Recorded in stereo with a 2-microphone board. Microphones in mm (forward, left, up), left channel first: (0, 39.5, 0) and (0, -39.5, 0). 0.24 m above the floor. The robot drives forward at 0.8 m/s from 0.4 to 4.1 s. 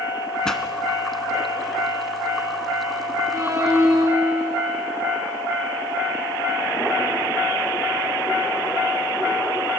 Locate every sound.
0.5 s a pop: 10° left (ahead or behind), 1.4 m; by 0.6 s 5° left (ahead or behind), 1.5 m
3.3 s a violin: 40° right (ahead or behind), 3.5 m; by 4.7 s 30° right (ahead or behind), 4 m